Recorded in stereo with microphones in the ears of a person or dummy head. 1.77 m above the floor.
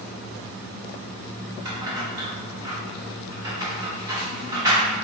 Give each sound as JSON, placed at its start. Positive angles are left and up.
{"t": 1.6, "sound": "keys jangling", "side_deg": -20, "distance_m": 0.9}